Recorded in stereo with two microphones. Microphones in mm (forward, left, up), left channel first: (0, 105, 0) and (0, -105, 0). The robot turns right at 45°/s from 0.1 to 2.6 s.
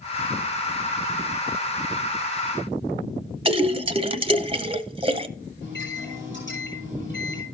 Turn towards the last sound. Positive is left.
turn(degrees=60)  # may be behind; listen again after turning